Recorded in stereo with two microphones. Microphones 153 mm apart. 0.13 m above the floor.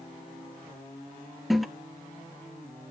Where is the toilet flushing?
Centre (ahead or behind), 0.8 m.